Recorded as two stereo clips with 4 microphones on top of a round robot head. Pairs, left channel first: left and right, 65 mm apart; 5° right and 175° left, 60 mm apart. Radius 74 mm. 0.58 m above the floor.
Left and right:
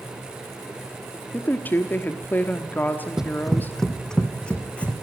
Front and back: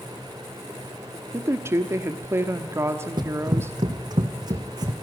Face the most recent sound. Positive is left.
turn(degrees=160)